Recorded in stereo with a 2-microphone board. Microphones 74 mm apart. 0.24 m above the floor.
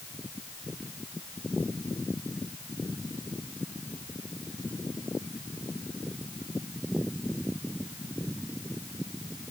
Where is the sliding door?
I don't hear a sliding door.